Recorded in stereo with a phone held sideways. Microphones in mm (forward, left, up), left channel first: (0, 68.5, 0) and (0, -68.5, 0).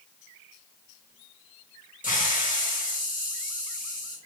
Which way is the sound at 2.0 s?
75° left (ahead or behind).